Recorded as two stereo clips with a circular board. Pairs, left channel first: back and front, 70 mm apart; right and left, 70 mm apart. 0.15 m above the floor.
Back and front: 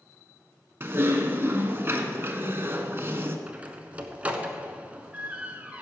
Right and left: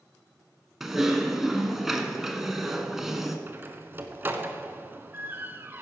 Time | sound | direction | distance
0.8 | typing on a keyboard | 5° left | 1.1 m
3.5 | a door slam | 55° left | 1.0 m